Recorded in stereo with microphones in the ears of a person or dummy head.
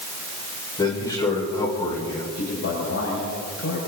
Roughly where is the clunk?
I don't hear a clunk.